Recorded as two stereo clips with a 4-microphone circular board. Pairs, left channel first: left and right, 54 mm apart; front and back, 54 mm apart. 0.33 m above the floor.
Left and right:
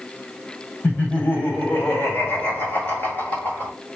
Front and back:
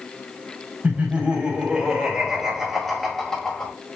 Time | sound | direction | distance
0.8 | laughter | 130° left | 2.5 m